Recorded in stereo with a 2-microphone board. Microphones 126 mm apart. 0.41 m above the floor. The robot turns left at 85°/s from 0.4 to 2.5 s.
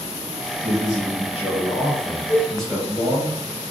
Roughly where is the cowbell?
Right.